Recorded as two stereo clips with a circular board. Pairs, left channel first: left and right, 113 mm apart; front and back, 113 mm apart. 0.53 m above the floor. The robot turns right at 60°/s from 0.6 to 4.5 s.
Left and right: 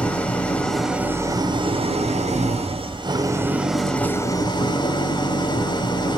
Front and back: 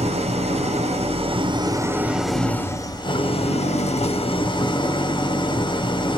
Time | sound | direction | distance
0.0 | an engine running | 170° left | 0.9 m